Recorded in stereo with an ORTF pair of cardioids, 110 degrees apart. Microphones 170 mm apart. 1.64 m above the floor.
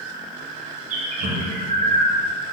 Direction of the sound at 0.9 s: 50° right.